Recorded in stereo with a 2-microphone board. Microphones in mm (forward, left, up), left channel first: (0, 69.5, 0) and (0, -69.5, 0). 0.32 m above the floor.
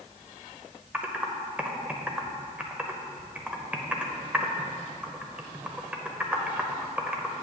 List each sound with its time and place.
0.9 s typing on a keyboard: 10° right (ahead or behind), 0.6 m